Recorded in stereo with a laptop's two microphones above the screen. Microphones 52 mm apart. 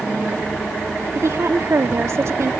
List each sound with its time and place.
1.1 s a woman speaking: 65° right (ahead or behind)